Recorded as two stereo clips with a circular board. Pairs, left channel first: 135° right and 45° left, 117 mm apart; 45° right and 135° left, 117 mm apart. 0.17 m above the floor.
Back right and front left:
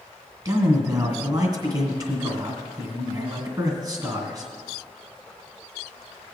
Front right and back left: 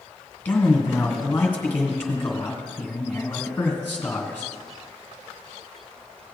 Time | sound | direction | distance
0.5 | a man speaking | 20° left | 2 m